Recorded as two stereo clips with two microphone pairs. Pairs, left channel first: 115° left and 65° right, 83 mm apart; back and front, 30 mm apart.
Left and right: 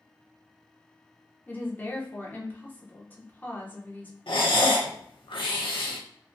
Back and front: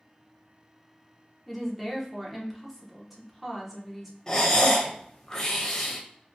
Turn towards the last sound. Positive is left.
turn(degrees=110)